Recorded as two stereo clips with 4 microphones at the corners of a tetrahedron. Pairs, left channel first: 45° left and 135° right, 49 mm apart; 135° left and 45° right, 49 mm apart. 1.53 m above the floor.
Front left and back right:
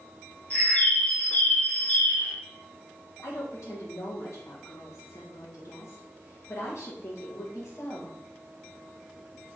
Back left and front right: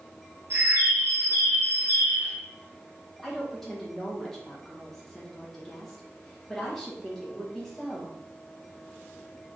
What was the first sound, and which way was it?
A bird, 10° right.